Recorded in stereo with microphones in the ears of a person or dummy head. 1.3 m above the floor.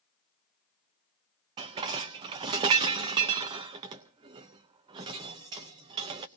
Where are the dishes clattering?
25° right (ahead or behind), 0.6 m.